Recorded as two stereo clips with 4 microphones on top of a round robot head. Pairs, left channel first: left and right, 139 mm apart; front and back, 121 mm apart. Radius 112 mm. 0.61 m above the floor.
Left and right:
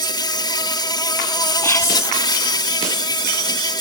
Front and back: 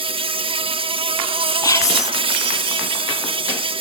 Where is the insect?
145° left.